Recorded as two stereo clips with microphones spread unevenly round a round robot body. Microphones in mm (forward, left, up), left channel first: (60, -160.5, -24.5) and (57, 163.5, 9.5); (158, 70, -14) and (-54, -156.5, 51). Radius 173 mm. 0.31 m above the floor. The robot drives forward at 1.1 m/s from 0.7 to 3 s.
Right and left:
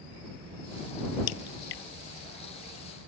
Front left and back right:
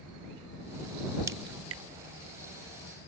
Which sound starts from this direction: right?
A crack, at 1.3 s.